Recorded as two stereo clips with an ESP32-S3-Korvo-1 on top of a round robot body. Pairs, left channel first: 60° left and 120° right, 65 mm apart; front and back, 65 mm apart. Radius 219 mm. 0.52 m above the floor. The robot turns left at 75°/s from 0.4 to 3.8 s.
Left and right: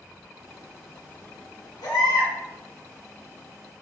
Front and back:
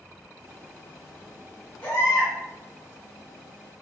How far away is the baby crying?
About 1.2 m.